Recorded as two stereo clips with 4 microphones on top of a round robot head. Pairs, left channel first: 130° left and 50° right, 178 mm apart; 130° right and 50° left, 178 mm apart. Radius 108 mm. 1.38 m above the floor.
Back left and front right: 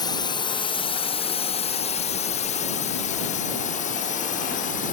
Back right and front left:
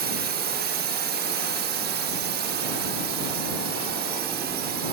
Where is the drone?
65° left; by 5.0 s 85° left.